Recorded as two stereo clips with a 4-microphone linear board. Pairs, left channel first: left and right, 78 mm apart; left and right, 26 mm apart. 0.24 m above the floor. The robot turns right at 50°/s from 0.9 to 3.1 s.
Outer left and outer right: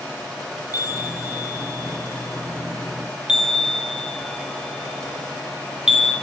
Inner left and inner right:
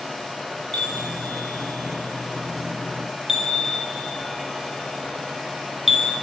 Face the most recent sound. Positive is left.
turn(degrees=-10)  # may be behind; listen again after turning